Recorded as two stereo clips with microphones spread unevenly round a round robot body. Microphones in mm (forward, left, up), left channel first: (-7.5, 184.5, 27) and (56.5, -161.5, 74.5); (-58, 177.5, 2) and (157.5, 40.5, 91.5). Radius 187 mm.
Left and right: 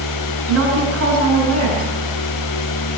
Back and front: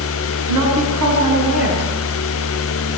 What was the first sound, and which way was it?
A woman speaking, 30° right.